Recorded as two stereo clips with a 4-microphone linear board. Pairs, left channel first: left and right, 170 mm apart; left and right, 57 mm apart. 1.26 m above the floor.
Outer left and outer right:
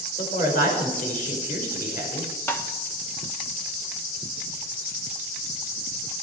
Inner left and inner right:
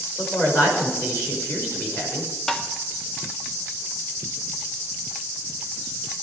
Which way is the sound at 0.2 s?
50° left (ahead or behind).